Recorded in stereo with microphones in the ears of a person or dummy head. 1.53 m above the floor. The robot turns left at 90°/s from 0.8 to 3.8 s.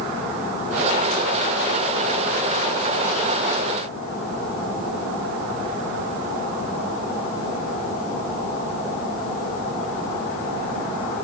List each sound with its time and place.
Only background noise.